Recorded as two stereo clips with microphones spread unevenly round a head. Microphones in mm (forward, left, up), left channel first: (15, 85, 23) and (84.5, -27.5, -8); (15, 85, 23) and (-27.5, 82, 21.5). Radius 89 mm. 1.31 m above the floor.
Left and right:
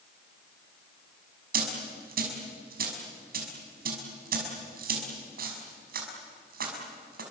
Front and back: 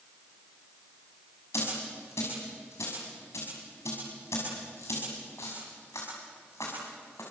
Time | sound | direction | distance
1.5 | a dropped coin | 50° right | 6 m